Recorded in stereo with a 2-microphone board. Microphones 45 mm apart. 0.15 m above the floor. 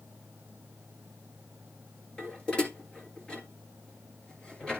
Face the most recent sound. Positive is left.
turn(degrees=25)  # may be behind; listen again after turning